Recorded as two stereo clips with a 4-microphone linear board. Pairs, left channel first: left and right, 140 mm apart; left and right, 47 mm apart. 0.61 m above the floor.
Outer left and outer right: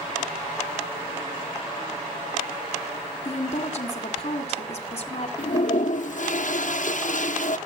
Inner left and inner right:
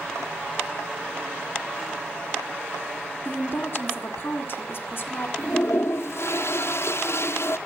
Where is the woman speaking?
50° left (ahead or behind), 2 m.